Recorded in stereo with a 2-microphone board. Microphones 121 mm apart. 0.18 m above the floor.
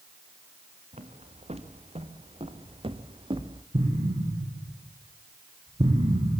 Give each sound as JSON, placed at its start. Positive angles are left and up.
{"t": 0.9, "sound": "footsteps", "side_deg": -65, "distance_m": 3.5}
{"t": 3.7, "sound": "an explosion", "side_deg": -55, "distance_m": 6.0}